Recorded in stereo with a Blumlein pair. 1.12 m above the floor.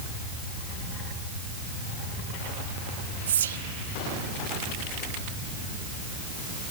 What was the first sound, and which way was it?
Whispering, 65° right.